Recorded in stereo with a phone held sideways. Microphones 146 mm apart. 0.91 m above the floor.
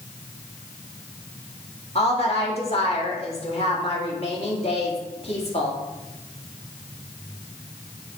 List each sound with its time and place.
1.9 s a woman speaking: 50° left (ahead or behind), 2 m